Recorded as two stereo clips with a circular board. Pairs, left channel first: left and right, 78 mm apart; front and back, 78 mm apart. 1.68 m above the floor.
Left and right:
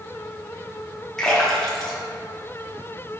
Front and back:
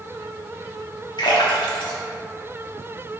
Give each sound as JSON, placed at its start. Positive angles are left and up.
{"t": 1.2, "sound": "a splash", "azimuth_deg": 5, "distance_m": 0.8}